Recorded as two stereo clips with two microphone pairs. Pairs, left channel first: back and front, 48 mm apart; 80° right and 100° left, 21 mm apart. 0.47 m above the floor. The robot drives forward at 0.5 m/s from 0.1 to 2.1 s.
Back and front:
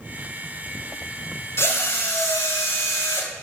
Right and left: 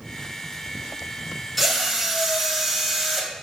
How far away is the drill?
About 1.4 m.